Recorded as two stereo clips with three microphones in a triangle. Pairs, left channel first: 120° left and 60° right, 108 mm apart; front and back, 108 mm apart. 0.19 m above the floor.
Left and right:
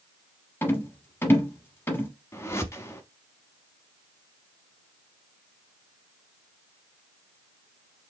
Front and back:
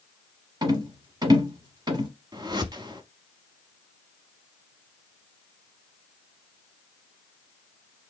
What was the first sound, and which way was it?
A rattle, 175° left.